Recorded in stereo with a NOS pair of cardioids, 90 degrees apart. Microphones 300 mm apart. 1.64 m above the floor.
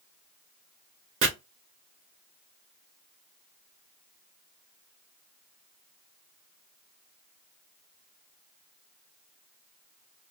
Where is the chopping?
45° right, 1.2 m.